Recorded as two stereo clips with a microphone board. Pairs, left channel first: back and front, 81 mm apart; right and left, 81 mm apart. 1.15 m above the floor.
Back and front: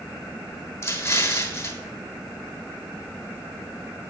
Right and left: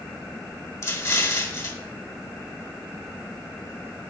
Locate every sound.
0.8 s an explosion: 130° right, 1.2 m